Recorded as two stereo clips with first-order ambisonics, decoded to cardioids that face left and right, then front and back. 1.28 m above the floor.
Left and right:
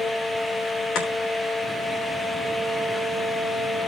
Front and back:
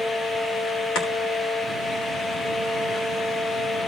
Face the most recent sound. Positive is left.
turn(degrees=50)